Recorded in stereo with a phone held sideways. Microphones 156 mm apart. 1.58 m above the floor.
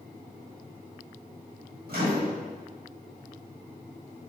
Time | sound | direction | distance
1.9 | a microwave | 80° right | 1.5 m